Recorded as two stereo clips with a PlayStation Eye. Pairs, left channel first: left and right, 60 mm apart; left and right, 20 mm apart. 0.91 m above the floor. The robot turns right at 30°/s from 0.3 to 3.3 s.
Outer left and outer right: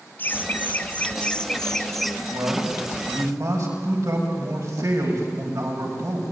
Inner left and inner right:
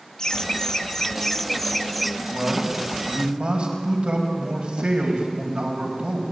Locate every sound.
0.2 s laughter: 120° left, 0.5 m; by 2.2 s straight behind, 0.5 m
2.3 s a man speaking: 100° right, 5.5 m; by 6.2 s 70° right, 5.5 m